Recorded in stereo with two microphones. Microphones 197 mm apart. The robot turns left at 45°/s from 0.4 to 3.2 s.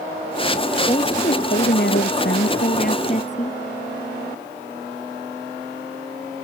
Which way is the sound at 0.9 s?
150° left.